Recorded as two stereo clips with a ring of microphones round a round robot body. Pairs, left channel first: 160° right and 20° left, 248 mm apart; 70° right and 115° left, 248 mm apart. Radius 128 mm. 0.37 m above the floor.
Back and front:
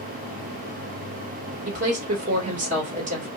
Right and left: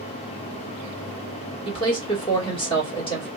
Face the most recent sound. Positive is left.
turn(degrees=-10)